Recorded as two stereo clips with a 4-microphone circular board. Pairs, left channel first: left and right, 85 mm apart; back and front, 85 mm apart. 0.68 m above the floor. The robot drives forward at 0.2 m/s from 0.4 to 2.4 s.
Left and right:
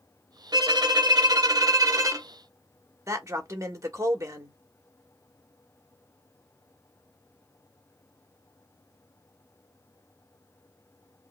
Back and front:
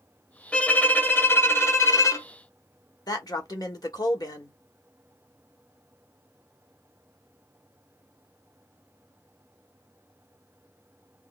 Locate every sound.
0.5 s a violin: 105° right, 0.6 m; by 2.3 s 135° right, 0.8 m
3.1 s a man speaking: 140° right, 1.3 m